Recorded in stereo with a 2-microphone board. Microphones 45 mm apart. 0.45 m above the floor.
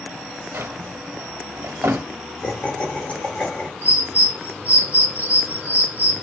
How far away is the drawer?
About 0.5 m.